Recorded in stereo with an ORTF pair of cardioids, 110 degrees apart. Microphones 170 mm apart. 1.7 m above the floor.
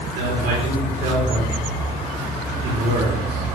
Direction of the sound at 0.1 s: 70° right.